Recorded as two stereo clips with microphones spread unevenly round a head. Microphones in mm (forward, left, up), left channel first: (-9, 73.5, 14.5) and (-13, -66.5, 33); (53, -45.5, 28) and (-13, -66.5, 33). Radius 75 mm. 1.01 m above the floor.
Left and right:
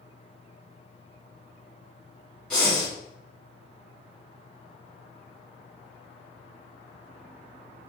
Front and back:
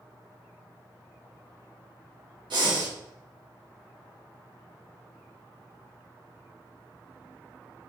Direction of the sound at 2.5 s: 170° left.